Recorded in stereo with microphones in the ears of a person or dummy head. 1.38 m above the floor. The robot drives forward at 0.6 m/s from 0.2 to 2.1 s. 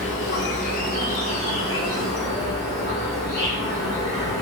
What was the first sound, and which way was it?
An insect, 40° left (ahead or behind).